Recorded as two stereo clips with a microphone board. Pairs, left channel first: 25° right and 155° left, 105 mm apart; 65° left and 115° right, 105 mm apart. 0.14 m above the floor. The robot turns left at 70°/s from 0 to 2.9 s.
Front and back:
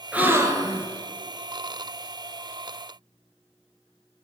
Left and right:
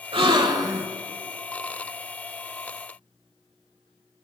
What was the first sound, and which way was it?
A gasp, 125° right.